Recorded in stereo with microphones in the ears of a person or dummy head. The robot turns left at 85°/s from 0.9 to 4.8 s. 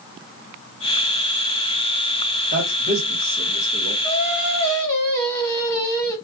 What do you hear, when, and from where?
2.5 s a man speaking: 55° right (ahead or behind), 1.5 m; by 3.9 s 60° left (ahead or behind), 1.5 m
4.0 s singing: 90° left, 1.2 m; by 6.2 s 25° left, 1.2 m